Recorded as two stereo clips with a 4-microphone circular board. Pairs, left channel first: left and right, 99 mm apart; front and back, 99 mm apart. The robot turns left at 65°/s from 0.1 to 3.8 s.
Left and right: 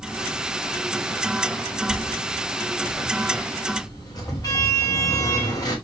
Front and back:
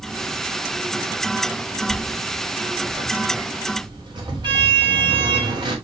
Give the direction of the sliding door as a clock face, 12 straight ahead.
3 o'clock.